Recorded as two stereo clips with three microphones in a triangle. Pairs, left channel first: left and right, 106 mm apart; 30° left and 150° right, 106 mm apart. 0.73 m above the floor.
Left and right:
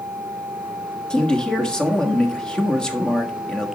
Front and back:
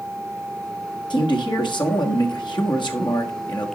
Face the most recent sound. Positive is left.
turn(degrees=10)